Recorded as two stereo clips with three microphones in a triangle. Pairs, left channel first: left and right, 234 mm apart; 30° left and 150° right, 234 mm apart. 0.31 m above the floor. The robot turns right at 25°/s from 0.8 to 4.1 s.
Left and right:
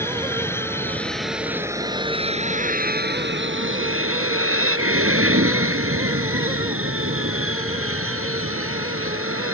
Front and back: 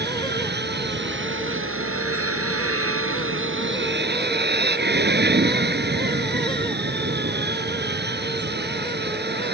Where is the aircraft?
170° left; by 9.6 s 110° right.